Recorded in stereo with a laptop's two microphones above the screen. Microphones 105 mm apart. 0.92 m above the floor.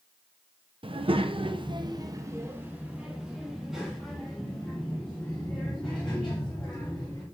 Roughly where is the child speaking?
Right.